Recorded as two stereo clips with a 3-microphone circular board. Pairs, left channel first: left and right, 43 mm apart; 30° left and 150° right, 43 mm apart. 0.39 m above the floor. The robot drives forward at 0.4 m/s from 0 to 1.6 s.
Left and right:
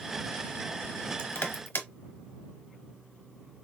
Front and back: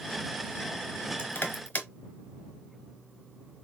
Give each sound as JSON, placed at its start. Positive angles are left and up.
{"t": 1.2, "sound": "crushing", "azimuth_deg": 65, "distance_m": 1.1}